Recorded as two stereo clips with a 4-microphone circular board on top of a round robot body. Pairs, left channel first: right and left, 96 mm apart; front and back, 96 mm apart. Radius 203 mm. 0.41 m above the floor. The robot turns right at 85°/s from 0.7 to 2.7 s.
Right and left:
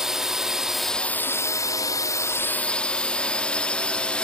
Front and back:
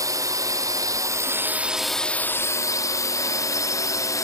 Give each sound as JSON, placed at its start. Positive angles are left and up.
{"t": 0.0, "sound": "a drone", "azimuth_deg": 170}